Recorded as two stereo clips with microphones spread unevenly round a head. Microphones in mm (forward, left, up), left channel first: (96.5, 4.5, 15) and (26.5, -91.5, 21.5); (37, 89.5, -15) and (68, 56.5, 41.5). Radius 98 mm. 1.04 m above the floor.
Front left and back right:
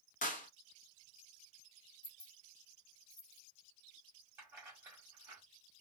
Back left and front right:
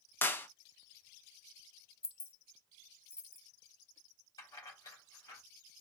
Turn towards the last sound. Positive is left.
turn(degrees=160)